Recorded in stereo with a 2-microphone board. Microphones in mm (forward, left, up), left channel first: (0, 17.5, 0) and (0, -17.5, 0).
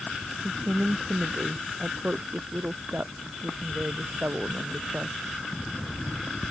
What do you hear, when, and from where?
0.4 s a woman speaking: 45° right (ahead or behind); by 5.2 s 55° right (ahead or behind)